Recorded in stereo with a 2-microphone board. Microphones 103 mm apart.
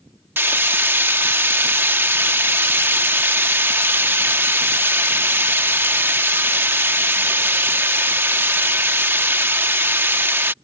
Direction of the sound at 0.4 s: 20° right (ahead or behind).